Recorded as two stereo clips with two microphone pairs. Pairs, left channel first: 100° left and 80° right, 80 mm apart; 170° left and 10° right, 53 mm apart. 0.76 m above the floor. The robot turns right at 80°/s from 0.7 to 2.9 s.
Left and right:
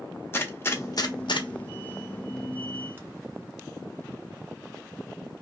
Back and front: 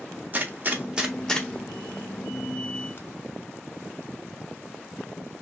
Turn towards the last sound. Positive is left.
turn(degrees=-145)